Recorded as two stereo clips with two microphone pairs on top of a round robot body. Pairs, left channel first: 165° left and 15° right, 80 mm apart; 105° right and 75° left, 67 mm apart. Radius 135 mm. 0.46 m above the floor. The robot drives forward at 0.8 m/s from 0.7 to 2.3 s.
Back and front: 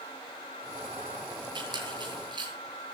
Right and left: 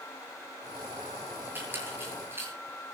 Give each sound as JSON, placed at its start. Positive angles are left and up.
{"t": 1.6, "sound": "a squeak", "azimuth_deg": 15, "distance_m": 8.0}